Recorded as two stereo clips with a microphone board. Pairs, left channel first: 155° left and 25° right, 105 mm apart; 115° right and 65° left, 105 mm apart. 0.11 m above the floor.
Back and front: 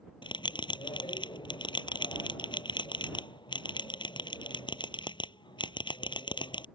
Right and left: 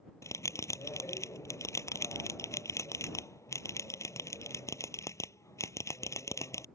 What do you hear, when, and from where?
0.2 s a bell: 170° right